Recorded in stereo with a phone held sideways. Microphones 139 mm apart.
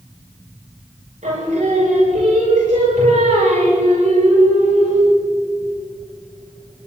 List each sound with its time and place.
1.2 s singing: 75° right (ahead or behind), 7 m